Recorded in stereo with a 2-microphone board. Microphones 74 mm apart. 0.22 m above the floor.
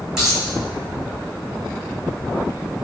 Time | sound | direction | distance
0.2 | a dropped coin | 5° right (ahead or behind) | 1.3 m